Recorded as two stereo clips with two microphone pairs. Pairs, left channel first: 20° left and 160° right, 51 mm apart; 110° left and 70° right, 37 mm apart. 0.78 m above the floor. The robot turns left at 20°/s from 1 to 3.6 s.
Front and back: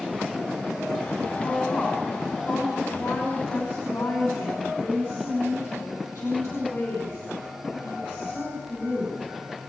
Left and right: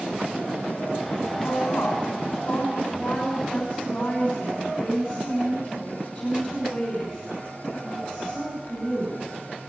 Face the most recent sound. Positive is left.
turn(degrees=40)